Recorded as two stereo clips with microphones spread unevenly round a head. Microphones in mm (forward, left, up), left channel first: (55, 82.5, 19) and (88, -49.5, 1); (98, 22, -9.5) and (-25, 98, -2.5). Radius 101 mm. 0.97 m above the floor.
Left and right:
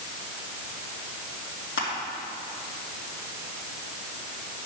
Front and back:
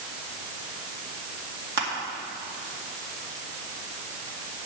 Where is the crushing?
150° left, 2 m.